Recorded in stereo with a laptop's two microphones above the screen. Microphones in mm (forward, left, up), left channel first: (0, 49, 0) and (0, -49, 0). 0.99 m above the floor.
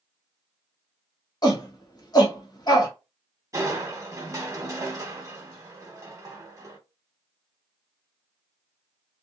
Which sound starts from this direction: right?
Crushing, at 3.5 s.